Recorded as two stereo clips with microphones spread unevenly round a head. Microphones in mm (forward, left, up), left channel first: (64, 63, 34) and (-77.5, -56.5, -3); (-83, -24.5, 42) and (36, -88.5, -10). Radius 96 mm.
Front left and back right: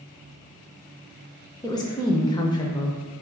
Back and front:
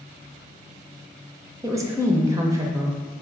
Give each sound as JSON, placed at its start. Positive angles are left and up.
{"t": 1.6, "sound": "a woman speaking", "azimuth_deg": -30, "distance_m": 0.5}